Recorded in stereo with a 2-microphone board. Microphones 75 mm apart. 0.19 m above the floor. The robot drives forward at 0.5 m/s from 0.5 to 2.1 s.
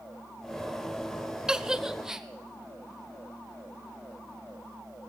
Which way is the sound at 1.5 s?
10° right (ahead or behind).